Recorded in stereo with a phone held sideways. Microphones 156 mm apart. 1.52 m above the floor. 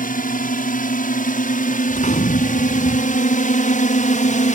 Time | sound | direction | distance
0.0 | a drone | 60° left (ahead or behind) | ?
1.9 | a gunshot | 50° left (ahead or behind) | ?